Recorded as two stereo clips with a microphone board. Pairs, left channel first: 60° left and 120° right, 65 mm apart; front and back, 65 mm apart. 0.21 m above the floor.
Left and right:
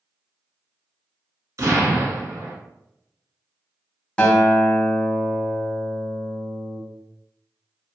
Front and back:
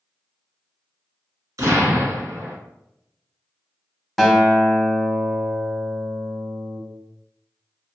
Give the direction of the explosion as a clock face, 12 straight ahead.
5 o'clock.